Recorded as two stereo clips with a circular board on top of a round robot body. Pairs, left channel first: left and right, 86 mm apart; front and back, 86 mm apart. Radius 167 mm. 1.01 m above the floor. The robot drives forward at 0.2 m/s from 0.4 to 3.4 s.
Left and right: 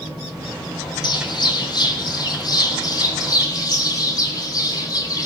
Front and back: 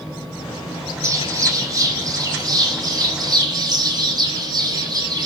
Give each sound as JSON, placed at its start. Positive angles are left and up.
{"t": 1.0, "sound": "a bird", "azimuth_deg": 125, "distance_m": 1.5}